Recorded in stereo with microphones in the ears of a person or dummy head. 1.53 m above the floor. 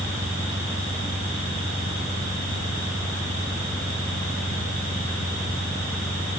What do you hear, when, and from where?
0.0 s an engine running: 5° left (ahead or behind)